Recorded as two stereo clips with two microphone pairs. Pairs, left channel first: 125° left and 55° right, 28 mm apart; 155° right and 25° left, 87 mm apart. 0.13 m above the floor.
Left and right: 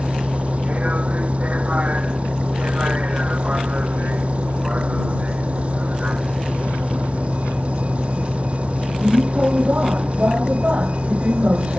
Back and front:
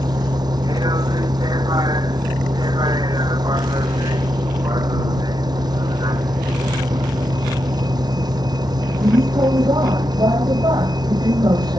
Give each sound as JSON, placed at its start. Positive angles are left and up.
{"t": 0.0, "sound": "a vehicle", "azimuth_deg": -10}